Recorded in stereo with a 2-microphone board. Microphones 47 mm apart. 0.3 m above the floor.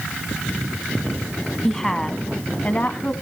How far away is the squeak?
I don't hear a squeak.